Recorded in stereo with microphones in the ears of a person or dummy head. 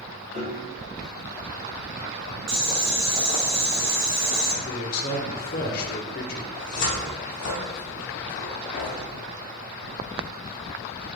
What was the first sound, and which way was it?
A piano, 35° right (ahead or behind).